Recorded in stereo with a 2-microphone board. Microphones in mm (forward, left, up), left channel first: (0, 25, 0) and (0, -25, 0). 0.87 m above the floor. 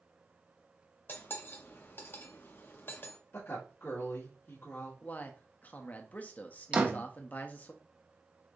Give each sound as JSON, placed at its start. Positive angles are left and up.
{"t": 1.1, "sound": "cutlery clinking", "side_deg": 45, "distance_m": 0.8}
{"t": 3.3, "sound": "a woman speaking", "side_deg": 55, "distance_m": 1.7}
{"t": 5.0, "sound": "a man speaking", "side_deg": 35, "distance_m": 0.8}
{"t": 6.7, "sound": "a door slam", "side_deg": -25, "distance_m": 0.8}